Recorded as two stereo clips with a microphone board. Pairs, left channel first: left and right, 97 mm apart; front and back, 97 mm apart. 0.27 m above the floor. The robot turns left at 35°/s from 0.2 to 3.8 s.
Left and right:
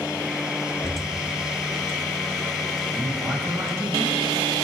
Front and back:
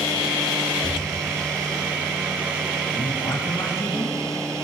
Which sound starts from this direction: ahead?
A man speaking, at 2.9 s.